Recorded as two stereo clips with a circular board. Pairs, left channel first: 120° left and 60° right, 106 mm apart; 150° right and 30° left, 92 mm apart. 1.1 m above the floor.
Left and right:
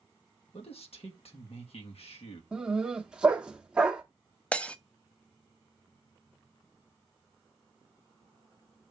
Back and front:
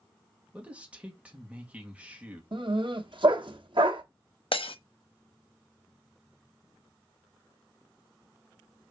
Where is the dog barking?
20° left, 1.0 m.